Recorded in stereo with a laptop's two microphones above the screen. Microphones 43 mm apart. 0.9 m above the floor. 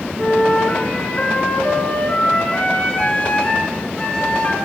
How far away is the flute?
About 1.8 m.